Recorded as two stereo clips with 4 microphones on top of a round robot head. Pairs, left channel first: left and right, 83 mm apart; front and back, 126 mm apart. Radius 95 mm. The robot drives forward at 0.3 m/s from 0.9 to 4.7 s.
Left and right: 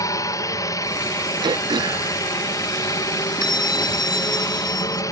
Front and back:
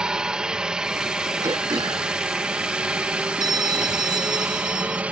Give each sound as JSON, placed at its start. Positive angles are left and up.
{"t": 0.0, "sound": "a helicopter", "azimuth_deg": 100}
{"t": 1.4, "sound": "throat clearing", "azimuth_deg": -115}
{"t": 3.4, "sound": "a bell", "azimuth_deg": 125}